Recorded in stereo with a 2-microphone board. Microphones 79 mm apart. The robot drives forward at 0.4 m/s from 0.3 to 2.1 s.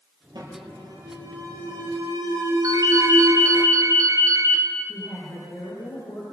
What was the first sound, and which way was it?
An alarm, 60° right (ahead or behind).